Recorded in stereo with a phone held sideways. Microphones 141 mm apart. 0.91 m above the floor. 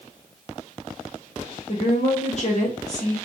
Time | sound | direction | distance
1.7 | a woman speaking | 50° left (ahead or behind) | 1.1 m